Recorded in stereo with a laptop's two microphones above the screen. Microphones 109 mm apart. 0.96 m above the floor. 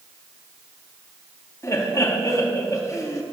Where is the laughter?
30° left (ahead or behind), 1.7 m.